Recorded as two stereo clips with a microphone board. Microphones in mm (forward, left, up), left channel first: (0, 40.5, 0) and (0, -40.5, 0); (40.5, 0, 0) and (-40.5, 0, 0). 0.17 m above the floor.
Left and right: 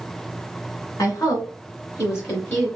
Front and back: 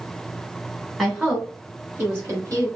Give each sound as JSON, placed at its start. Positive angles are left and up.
{"t": 1.0, "sound": "a woman speaking", "azimuth_deg": 95, "distance_m": 2.0}